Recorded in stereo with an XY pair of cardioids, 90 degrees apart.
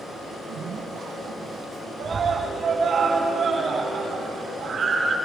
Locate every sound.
0.3 s a zipper: 60° right, 1.6 m
2.0 s a scream: 50° right, 3 m